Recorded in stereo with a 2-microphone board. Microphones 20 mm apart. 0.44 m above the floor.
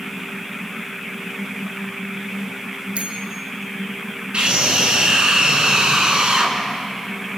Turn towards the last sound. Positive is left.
turn(degrees=-60)  # may be behind; listen again after turning